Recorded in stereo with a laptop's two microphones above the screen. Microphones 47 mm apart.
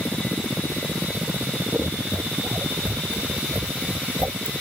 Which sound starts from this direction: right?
Scissors, at 1.7 s.